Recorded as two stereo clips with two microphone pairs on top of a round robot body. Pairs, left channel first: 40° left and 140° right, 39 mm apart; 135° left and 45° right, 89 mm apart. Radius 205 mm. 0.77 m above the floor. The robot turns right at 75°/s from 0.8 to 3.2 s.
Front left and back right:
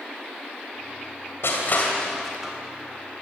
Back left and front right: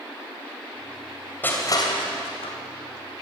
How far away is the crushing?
About 2.5 m.